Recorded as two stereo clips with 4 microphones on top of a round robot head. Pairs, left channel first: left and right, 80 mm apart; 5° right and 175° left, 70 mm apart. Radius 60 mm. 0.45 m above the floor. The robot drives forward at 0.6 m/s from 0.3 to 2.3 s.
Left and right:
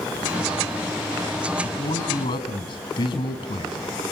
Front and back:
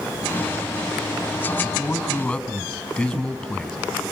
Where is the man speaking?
70° left, 5 m; by 3.8 s 75° left, 5 m.